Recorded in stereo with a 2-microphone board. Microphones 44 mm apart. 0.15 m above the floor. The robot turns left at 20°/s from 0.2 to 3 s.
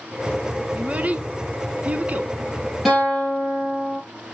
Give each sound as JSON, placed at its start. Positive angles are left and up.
{"t": 0.8, "sound": "a child speaking", "side_deg": -30, "distance_m": 0.8}
{"t": 2.9, "sound": "a guitar", "side_deg": 0, "distance_m": 4.5}